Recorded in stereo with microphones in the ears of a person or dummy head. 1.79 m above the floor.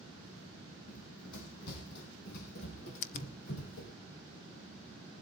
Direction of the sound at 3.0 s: 45° left (ahead or behind).